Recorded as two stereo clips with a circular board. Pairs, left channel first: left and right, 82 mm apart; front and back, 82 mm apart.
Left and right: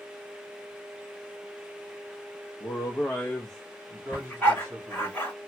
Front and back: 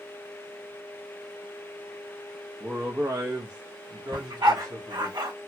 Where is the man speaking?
115° left, 0.7 m; by 5.1 s 135° right, 1.3 m.